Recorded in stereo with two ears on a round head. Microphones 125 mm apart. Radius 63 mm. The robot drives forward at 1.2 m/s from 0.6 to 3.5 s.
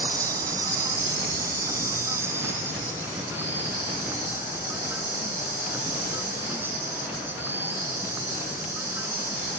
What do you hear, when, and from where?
0.0 s an insect: 25° right (ahead or behind); by 9.6 s 15° right (ahead or behind)